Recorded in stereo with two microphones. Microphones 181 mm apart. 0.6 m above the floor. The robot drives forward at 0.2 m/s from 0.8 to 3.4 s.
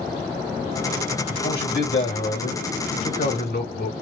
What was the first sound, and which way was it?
A man speaking, 70° left (ahead or behind).